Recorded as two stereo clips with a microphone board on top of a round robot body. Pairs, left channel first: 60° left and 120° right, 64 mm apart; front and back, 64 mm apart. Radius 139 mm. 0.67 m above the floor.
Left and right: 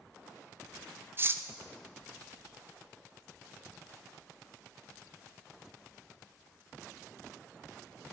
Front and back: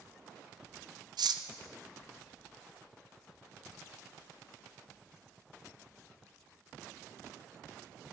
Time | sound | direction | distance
1.2 | cutlery clinking | 175° right | 0.6 m